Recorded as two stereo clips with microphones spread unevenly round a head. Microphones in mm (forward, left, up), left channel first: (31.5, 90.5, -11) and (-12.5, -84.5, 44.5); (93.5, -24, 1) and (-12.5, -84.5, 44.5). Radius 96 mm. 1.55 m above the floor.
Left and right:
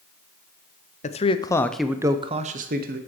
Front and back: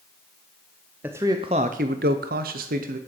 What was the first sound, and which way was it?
A man speaking, 125° left.